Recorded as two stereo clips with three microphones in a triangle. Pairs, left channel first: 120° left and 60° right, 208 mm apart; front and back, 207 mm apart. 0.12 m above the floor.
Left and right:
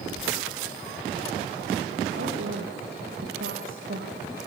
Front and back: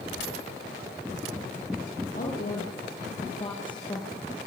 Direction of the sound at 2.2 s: 45° right.